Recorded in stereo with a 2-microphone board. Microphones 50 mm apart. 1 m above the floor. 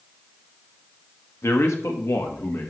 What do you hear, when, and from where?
1.4 s a man speaking: 70° left (ahead or behind), 1.4 m; by 2.7 s 65° left (ahead or behind), 1.8 m